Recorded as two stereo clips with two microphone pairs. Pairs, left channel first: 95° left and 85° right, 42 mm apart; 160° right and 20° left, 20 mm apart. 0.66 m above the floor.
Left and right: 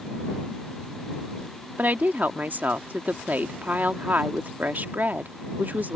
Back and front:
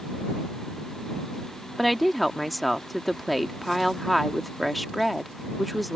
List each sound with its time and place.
1.8 s a woman speaking: 75° right